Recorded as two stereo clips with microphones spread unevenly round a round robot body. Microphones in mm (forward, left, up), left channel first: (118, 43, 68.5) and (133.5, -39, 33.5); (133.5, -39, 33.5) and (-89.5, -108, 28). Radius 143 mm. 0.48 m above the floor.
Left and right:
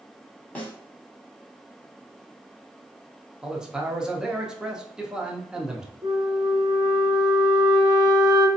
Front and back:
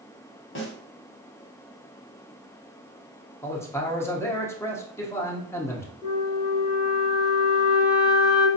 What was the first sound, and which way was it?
A snare drum, 10° left.